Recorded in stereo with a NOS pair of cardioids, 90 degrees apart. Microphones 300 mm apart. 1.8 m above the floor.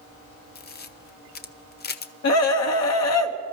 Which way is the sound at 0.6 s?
35° left.